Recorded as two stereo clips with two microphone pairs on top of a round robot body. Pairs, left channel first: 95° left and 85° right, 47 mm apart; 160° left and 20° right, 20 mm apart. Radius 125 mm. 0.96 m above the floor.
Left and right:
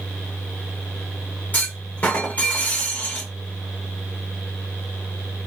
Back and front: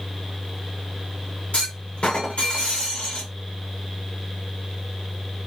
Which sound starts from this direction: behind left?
A clunk, at 1.5 s.